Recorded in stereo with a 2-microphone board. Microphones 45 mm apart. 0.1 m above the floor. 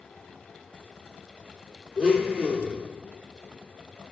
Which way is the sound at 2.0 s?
10° right (ahead or behind).